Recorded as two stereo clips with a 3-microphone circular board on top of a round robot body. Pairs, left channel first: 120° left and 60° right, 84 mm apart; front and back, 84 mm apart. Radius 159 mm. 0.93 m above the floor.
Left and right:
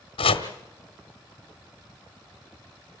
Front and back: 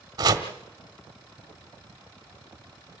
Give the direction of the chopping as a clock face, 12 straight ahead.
8 o'clock.